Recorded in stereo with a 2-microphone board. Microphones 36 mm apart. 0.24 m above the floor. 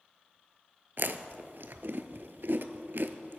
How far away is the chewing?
About 0.6 m.